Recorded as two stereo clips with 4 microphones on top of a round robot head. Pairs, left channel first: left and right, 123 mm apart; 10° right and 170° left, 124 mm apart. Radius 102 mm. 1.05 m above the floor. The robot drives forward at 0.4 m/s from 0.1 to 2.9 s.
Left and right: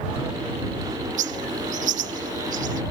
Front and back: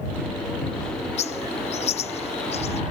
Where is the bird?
55° right; by 2.8 s 60° right.